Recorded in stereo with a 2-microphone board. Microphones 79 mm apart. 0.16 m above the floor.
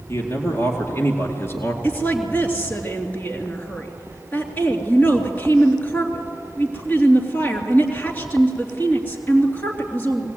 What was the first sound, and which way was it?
A man speaking, 35° left (ahead or behind).